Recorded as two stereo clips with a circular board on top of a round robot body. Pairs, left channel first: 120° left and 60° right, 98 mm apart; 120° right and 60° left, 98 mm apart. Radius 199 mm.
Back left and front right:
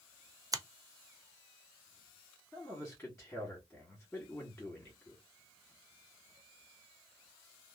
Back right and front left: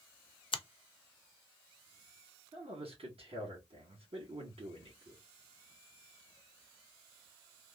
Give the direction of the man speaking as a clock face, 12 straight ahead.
11 o'clock.